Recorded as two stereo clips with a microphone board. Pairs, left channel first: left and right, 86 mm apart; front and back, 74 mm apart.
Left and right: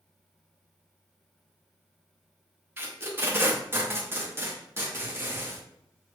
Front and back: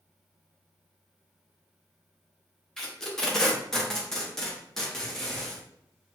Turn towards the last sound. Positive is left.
turn(degrees=-75)